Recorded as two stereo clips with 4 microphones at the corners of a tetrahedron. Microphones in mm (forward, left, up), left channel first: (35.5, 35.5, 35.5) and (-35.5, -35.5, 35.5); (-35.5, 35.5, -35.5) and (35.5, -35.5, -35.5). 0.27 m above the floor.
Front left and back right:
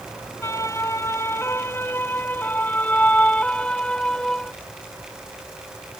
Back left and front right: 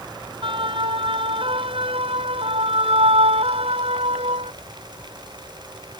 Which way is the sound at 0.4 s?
15° right.